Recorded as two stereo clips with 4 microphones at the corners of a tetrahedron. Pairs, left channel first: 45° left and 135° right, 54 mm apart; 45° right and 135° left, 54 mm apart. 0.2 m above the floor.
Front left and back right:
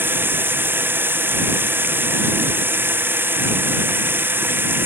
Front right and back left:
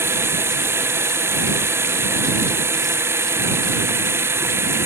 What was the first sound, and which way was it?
Running water, 175° left.